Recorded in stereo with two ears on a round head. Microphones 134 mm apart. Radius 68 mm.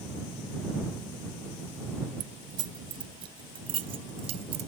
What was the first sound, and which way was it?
Keys jangling, 30° right (ahead or behind).